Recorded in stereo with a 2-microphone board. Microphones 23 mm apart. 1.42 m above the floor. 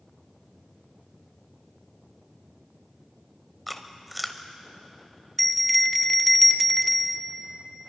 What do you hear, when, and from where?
3.7 s chewing: 10° left (ahead or behind), 1.2 m
5.4 s a bell: 10° left (ahead or behind), 0.8 m